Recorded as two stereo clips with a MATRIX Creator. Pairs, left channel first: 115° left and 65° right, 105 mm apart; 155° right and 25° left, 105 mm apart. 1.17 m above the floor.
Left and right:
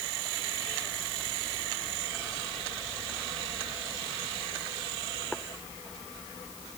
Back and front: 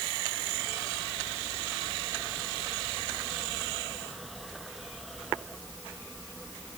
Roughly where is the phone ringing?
No phone ringing in this recording.